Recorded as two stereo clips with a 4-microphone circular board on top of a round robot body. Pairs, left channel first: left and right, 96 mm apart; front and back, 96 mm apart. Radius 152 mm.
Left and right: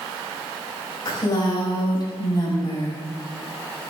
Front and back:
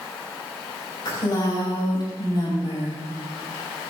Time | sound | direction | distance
1.1 | a woman speaking | 45° left | 6 m